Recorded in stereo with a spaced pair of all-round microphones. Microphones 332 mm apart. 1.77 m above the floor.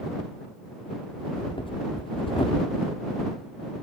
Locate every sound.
1.2 s breathing: 15° left (ahead or behind)